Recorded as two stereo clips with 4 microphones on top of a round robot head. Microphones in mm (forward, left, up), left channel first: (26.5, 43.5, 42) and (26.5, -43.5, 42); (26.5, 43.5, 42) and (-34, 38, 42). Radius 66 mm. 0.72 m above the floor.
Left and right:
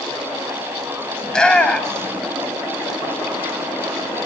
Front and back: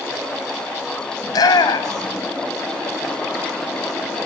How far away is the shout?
About 4 m.